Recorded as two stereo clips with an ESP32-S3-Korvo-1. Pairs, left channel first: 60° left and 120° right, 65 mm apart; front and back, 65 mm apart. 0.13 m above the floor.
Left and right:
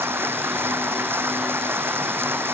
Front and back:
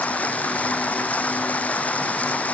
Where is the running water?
65° right.